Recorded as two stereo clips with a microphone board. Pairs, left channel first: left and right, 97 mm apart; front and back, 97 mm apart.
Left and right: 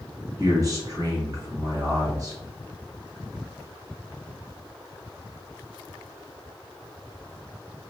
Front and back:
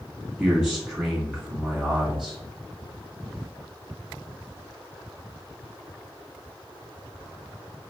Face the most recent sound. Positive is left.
turn(degrees=-100)